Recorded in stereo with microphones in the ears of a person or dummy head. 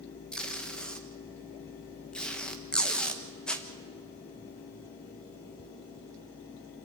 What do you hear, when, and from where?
0.3 s tape being pulled: 5° left (ahead or behind), 1.4 m